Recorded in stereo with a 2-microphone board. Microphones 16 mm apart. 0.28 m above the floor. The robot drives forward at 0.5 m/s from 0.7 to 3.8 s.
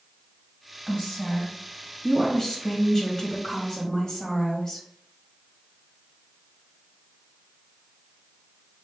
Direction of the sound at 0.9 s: 30° left (ahead or behind).